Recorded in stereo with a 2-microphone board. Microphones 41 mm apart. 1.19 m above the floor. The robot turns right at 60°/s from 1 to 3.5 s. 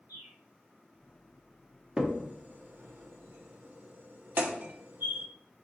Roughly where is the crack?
Centre.